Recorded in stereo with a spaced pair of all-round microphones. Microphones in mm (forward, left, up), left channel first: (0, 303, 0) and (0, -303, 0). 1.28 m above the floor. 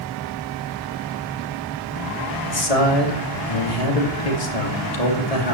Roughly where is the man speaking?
Left.